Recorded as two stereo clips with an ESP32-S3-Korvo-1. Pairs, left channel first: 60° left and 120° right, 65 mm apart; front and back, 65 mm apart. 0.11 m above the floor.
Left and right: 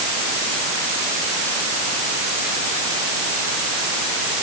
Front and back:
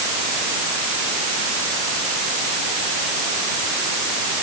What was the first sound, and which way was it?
Only background noise.